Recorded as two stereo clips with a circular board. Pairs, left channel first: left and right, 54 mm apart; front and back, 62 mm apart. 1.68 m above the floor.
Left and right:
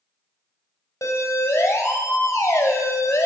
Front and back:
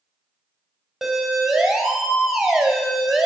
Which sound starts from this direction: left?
A siren, at 1.0 s.